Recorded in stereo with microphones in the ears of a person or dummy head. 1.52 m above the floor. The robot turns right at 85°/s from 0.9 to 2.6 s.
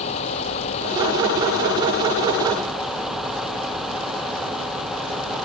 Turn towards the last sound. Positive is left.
turn(degrees=180)